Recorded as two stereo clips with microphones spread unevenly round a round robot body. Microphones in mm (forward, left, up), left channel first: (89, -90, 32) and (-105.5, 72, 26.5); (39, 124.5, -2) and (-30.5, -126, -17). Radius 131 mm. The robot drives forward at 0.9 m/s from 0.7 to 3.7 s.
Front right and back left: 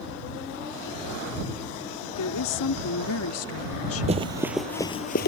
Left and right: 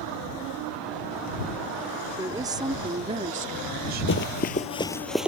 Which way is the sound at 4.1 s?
80° left.